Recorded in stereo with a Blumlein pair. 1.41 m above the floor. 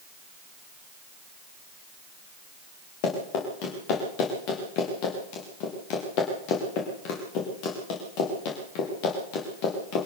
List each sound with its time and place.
3.0 s running footsteps: 45° left, 7.5 m